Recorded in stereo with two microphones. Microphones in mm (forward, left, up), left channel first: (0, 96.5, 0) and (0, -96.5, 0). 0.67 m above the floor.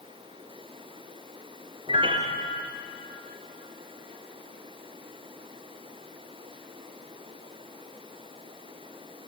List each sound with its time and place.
1.9 s a piano: 25° right (ahead or behind), 1.9 m